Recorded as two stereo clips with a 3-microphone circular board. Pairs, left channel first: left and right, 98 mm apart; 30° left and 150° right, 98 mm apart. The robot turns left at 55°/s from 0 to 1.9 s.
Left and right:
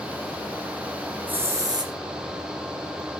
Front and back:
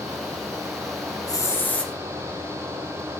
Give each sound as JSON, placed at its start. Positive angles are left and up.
{"t": 1.3, "sound": "a hiss", "azimuth_deg": -20, "distance_m": 1.4}